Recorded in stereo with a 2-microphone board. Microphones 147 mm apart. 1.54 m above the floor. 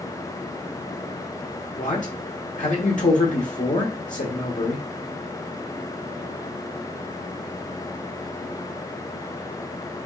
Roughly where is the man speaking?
Left.